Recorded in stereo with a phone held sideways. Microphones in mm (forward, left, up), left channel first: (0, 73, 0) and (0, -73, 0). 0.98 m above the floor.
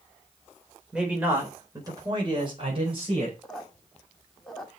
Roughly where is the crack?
No crack in this recording.